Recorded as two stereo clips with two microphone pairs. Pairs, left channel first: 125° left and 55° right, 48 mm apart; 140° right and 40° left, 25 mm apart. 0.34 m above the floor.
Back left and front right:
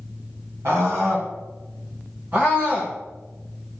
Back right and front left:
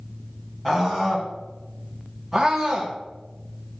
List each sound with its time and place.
0.7 s a scream: 60° right, 3 m; by 3.0 s 5° right, 1.8 m